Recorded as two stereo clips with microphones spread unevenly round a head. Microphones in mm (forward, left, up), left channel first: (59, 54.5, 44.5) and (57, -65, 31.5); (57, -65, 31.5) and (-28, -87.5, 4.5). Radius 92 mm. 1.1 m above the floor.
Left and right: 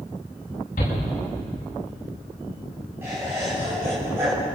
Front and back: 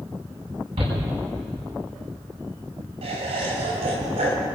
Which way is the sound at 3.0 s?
170° right.